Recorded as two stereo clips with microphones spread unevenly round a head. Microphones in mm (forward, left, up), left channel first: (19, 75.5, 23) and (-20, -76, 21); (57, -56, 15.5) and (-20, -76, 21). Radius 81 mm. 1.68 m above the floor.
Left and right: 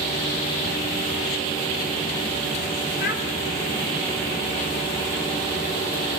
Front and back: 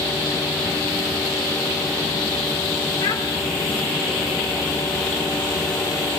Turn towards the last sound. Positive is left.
turn(degrees=50)